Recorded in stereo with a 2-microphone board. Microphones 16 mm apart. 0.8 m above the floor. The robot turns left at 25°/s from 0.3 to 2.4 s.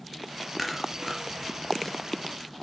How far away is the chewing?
About 4 m.